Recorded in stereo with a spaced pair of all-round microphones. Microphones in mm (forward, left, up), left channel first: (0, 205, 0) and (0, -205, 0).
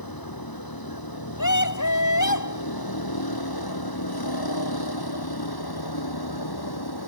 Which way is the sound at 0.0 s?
60° left (ahead or behind).